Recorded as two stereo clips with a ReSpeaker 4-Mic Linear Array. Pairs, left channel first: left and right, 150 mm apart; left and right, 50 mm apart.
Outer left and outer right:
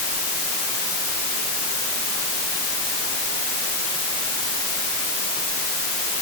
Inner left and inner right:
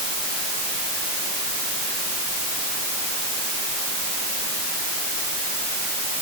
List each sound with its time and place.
Only background noise.